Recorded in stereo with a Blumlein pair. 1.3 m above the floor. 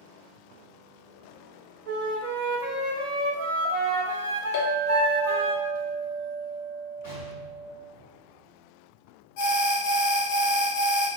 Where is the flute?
50° right, 0.8 m.